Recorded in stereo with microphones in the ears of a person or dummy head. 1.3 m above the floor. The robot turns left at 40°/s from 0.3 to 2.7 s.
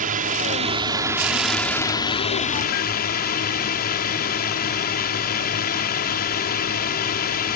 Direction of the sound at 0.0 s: 130° right.